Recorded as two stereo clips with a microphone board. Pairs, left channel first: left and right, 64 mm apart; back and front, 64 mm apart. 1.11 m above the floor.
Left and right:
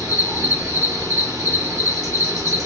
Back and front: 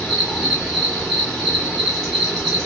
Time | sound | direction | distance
0.0 | an insect | 90° right | 1.3 m